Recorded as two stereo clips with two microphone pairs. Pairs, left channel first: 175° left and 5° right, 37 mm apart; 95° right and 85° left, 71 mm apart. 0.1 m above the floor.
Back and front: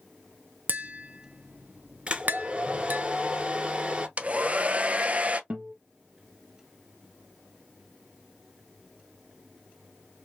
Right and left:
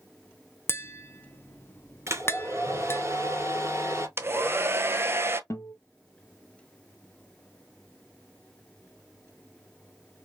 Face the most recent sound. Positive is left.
turn(degrees=-55)